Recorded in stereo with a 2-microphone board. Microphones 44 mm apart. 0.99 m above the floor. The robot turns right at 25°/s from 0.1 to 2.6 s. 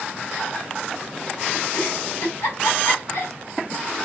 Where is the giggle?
65° left (ahead or behind), 1.2 m; by 4.0 s 85° left, 1.2 m.